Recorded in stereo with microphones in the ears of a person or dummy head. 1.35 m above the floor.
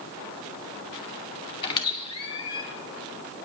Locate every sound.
1.6 s a squeak: 30° left (ahead or behind), 2 m